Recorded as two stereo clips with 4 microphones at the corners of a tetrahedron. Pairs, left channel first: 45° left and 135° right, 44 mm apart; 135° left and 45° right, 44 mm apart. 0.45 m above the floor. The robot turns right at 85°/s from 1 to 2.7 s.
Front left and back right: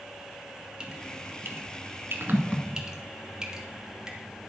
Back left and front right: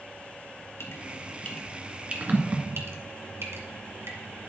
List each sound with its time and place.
0.8 s dripping: 155° left, 2 m; by 4.5 s 60° right, 2 m